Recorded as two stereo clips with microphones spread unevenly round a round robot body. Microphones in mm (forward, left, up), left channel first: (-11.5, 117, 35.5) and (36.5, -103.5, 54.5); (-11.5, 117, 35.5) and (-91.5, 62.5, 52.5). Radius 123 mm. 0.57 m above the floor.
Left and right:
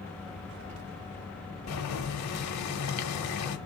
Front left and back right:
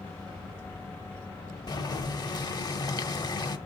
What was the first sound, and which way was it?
Boiling, 85° left.